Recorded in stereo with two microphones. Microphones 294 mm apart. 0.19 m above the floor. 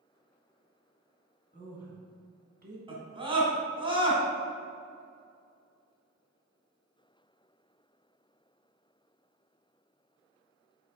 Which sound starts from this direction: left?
A woman speaking, at 1.5 s.